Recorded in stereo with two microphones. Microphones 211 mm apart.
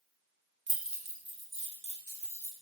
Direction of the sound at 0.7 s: 60° right (ahead or behind).